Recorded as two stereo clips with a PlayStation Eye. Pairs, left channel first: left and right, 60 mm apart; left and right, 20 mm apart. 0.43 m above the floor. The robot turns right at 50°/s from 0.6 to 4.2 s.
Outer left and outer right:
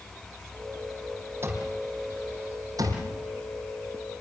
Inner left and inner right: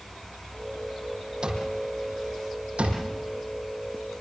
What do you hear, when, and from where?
1.4 s an alarm clock: 35° right (ahead or behind), 6 m; by 4.2 s 5° right (ahead or behind), 6 m